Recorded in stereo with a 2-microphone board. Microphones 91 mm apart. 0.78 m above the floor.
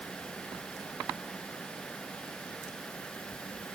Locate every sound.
Only background noise.